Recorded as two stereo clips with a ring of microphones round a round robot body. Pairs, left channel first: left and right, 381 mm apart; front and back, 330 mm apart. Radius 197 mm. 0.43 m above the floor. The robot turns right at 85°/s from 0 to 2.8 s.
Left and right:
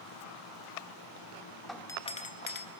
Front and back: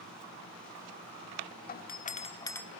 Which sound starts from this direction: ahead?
A doorbell, at 1.7 s.